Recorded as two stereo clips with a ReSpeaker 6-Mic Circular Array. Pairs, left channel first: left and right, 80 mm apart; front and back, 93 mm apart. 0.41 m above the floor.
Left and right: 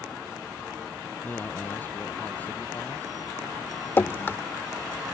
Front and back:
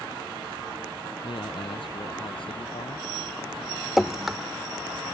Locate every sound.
1.2 s a man speaking: 25° left; by 3.1 s 20° left
4.0 s dripping: 95° left